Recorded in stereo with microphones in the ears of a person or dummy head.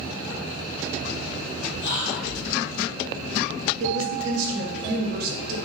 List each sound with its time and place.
1.8 s whispering: 55° left (ahead or behind), 0.9 m
3.8 s a woman speaking: 55° right (ahead or behind), 0.6 m